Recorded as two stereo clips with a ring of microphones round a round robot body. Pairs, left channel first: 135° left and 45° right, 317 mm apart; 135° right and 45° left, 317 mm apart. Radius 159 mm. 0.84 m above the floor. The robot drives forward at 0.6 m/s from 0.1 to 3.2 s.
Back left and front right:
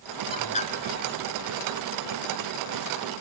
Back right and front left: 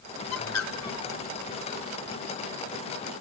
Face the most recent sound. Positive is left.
turn(degrees=-175)